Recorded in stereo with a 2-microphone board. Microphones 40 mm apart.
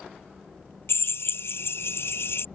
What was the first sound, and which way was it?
A drill, 75° left (ahead or behind).